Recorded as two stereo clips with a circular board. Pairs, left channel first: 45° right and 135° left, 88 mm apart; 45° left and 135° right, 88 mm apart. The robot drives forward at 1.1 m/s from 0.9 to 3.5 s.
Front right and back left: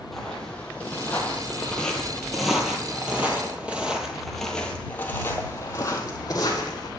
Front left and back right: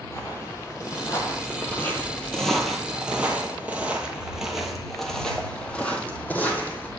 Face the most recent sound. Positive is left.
turn(degrees=-20)